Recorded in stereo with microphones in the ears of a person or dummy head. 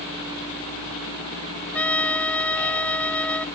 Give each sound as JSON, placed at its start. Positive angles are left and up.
{"t": 1.7, "sound": "a trumpet", "side_deg": 5}